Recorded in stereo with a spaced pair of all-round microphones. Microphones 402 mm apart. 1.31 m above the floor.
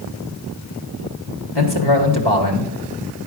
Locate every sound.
1.6 s a man speaking: 70° left (ahead or behind), 1.8 m